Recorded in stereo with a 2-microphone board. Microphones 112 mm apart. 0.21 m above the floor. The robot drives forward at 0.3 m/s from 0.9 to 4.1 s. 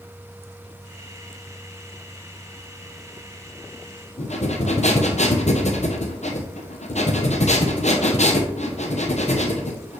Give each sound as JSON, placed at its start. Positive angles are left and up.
{"t": 4.2, "sound": "breathing", "side_deg": 85, "distance_m": 1.1}